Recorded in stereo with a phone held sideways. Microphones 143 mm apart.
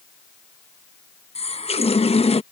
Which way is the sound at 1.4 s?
45° left (ahead or behind).